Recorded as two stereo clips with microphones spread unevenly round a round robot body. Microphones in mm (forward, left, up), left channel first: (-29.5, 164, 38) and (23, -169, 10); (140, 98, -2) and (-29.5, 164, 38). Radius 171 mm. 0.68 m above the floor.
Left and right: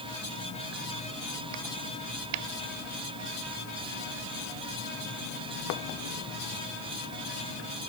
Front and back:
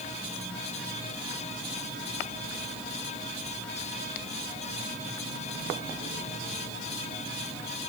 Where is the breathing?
I don't hear breathing.